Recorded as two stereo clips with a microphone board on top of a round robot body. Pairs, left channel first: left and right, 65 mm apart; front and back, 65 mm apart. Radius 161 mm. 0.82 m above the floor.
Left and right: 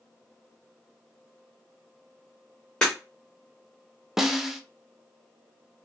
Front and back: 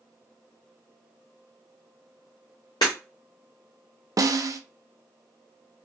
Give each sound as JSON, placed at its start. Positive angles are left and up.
{"t": 2.8, "sound": "breaking glass", "azimuth_deg": 20, "distance_m": 0.6}
{"t": 4.2, "sound": "a snare drum", "azimuth_deg": -175, "distance_m": 0.6}